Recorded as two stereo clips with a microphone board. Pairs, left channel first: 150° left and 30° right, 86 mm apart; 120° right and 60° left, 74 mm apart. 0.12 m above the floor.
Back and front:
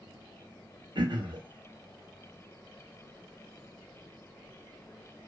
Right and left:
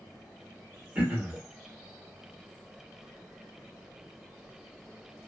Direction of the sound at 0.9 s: 15° right.